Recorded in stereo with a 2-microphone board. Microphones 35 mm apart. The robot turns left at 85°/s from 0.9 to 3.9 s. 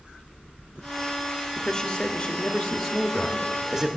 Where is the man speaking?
20° left (ahead or behind), 0.8 m; by 4.0 s 20° right (ahead or behind), 0.8 m.